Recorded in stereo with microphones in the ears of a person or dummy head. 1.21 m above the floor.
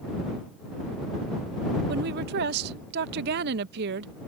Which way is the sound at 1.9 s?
60° right (ahead or behind).